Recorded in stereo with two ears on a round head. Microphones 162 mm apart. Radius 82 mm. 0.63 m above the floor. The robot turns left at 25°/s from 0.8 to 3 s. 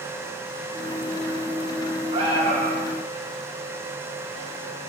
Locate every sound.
2.1 s an alarm: 30° right (ahead or behind), 5 m; by 2.9 s 50° right (ahead or behind), 5 m